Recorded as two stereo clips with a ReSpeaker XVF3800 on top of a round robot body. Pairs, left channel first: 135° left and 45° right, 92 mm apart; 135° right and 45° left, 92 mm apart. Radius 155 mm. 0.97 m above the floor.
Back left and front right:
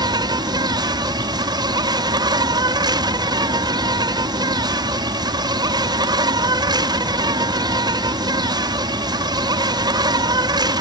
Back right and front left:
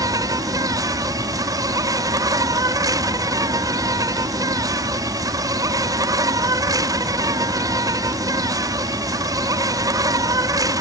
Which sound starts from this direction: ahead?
An insect, at 0.0 s.